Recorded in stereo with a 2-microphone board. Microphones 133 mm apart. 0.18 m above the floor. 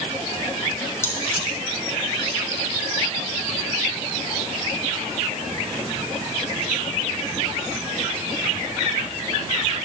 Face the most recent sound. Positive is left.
turn(degrees=20)  # may be behind; listen again after turning